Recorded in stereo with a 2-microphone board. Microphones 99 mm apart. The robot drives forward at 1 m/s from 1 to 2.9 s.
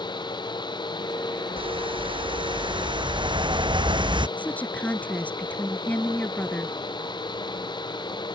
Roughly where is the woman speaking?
Centre.